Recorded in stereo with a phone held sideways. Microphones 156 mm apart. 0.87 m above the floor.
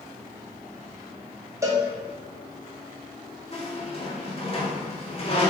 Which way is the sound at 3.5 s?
40° left (ahead or behind).